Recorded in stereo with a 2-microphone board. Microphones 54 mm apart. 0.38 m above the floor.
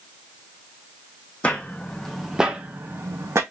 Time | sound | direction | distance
1.4 | footsteps | 25° left (ahead or behind) | 0.8 m